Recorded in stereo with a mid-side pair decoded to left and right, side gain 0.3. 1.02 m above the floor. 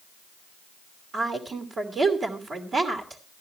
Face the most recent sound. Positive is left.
turn(degrees=-70)